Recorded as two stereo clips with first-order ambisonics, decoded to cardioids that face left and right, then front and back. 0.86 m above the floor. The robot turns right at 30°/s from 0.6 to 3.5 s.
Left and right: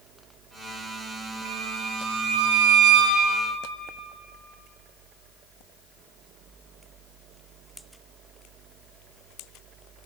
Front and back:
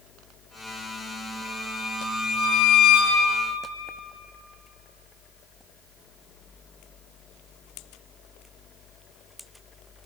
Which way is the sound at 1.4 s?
95° right.